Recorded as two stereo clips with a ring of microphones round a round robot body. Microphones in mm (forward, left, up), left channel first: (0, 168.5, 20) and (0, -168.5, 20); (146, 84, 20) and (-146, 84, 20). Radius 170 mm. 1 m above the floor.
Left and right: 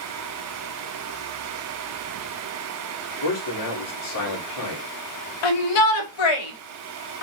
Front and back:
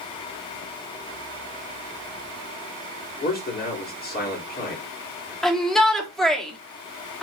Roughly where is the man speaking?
Ahead left.